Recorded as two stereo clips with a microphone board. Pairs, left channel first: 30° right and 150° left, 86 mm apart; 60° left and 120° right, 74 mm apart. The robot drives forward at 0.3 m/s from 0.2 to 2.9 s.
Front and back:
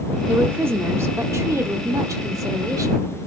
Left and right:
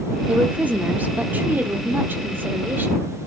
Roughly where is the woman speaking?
Behind.